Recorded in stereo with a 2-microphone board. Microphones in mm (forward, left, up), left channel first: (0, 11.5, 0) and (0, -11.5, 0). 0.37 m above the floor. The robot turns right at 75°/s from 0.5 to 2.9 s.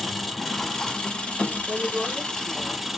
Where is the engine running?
10° left, 1.1 m; by 3.0 s 170° right, 1.1 m.